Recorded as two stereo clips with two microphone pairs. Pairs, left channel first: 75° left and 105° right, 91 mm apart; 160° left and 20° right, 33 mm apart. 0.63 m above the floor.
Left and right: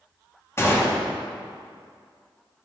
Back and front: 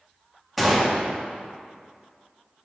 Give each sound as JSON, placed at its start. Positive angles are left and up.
{"t": 0.6, "sound": "a gunshot", "azimuth_deg": 75, "distance_m": 1.1}